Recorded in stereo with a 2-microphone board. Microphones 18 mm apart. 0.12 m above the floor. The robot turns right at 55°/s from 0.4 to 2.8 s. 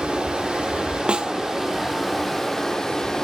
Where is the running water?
90° right, 4 m; by 3.2 s 40° left, 4 m.